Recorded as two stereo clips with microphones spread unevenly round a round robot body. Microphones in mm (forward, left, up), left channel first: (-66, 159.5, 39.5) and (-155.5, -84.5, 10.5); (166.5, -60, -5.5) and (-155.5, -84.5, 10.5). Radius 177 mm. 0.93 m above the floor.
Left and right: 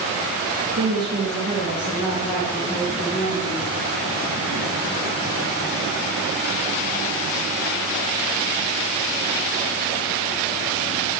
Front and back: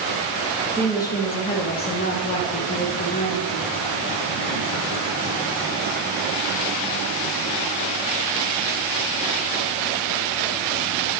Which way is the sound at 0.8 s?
75° right.